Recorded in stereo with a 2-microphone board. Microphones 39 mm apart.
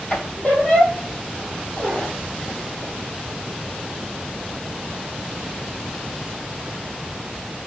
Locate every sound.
0.1 s a squeak: 35° left (ahead or behind), 2 m